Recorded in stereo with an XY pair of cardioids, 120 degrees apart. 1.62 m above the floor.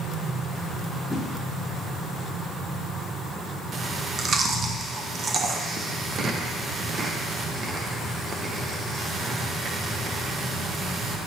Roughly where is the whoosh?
Ahead.